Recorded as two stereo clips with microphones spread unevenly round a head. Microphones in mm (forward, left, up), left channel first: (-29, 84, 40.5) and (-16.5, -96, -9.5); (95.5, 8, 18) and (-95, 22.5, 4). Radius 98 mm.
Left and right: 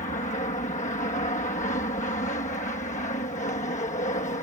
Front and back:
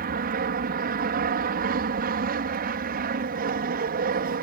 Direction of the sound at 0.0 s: 145° left.